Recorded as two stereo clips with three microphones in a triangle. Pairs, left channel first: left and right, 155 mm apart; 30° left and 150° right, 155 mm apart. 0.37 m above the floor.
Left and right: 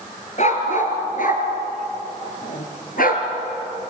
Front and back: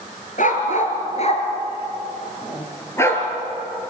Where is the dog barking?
55° left, 3 m; by 3.2 s 105° left, 3 m.